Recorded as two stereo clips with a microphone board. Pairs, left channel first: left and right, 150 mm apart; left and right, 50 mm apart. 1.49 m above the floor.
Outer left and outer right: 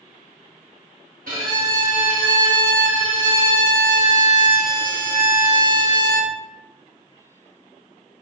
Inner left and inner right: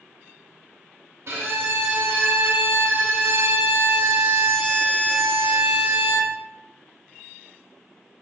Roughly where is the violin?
Right.